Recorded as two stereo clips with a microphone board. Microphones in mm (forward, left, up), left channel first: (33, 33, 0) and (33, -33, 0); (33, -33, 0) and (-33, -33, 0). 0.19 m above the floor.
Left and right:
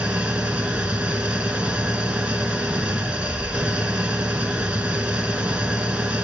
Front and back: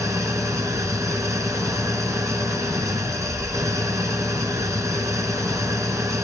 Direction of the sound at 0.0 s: 155° right.